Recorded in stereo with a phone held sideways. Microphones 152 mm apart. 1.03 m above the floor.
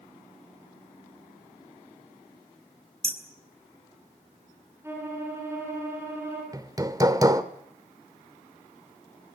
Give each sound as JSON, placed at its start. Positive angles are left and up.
{"t": 3.0, "sound": "hammering", "side_deg": -40, "distance_m": 3.0}
{"t": 4.8, "sound": "a violin", "side_deg": -15, "distance_m": 9.5}
{"t": 6.5, "sound": "hammering", "side_deg": -25, "distance_m": 1.3}